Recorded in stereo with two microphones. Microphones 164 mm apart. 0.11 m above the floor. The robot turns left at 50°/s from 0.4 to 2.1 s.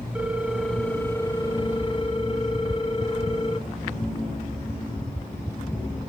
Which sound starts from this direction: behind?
A ringtone, at 0.1 s.